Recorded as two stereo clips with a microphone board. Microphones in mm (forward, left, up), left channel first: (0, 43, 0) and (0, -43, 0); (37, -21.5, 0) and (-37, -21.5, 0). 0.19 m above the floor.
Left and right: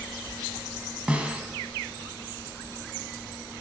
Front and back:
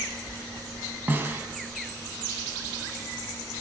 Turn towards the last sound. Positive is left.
turn(degrees=-150)